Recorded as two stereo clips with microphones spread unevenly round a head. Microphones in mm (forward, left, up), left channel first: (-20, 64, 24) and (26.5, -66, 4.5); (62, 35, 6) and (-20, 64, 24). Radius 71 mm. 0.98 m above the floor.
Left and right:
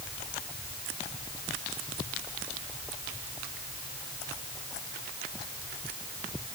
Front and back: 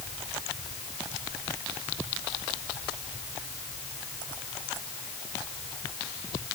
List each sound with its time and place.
Only background noise.